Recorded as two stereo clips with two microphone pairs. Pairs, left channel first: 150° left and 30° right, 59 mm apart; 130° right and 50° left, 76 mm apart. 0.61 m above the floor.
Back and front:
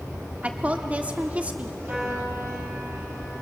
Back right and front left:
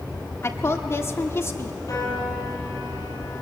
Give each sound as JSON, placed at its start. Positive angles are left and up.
{"t": 0.4, "sound": "a woman speaking", "azimuth_deg": -90, "distance_m": 1.4}
{"t": 1.9, "sound": "a piano", "azimuth_deg": -90, "distance_m": 6.0}